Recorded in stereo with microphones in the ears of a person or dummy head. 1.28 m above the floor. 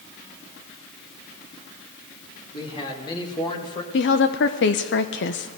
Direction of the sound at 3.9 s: 55° left (ahead or behind).